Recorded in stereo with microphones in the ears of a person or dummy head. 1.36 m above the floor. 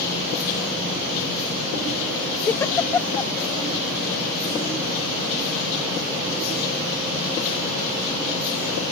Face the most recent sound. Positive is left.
turn(degrees=15)  # may be behind; listen again after turning